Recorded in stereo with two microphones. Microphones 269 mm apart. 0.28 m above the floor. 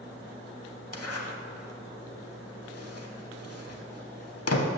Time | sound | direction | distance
0.9 | a zipper | 65° left (ahead or behind) | 0.6 m